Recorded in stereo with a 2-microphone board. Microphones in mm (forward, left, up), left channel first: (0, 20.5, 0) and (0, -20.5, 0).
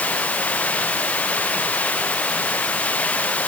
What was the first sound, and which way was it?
Running water, 35° left (ahead or behind).